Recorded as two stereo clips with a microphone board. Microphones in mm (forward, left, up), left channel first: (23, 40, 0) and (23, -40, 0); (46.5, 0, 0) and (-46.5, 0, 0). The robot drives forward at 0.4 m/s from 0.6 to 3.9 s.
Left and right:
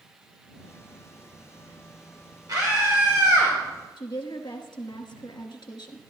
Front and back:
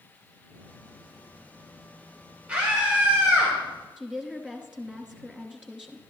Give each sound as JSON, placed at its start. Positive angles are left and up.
{"t": 2.5, "sound": "a scream", "azimuth_deg": -105, "distance_m": 2.5}
{"t": 4.0, "sound": "a woman speaking", "azimuth_deg": 100, "distance_m": 1.2}